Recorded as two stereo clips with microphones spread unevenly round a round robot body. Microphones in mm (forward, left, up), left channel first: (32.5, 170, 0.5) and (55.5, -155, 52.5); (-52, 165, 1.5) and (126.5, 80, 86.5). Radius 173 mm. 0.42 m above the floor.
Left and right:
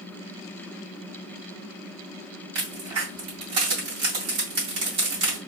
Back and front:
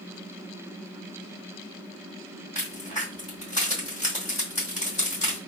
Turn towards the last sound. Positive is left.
turn(degrees=-120)